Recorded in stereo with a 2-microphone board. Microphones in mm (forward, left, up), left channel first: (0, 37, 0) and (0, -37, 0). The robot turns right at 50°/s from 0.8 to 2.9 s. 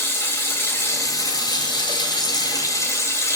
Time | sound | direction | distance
0.0 | running water | 35° left | 2.5 m